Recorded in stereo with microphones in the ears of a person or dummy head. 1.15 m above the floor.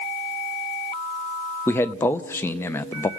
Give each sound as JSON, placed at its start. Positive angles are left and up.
{"t": 1.7, "sound": "a man speaking", "side_deg": 10, "distance_m": 0.6}